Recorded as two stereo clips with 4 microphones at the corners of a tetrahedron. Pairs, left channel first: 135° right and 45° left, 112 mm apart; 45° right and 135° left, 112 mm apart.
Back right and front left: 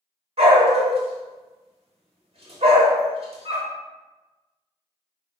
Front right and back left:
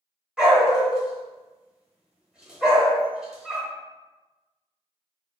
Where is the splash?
No splash in this recording.